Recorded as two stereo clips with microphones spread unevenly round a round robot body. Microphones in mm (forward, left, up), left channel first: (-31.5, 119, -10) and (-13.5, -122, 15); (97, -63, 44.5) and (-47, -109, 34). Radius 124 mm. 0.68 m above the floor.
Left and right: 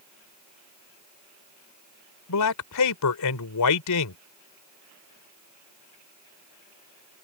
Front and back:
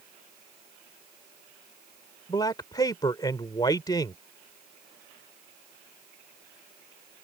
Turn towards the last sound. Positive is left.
turn(degrees=90)